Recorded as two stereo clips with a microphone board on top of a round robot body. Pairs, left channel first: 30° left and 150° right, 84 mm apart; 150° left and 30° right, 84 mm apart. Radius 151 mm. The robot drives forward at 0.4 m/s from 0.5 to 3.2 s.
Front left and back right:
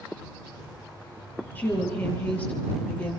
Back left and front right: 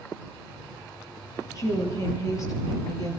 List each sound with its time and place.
1.6 s a woman speaking: 100° left, 9 m